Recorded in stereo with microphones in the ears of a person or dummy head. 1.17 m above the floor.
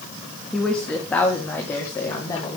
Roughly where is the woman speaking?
Centre.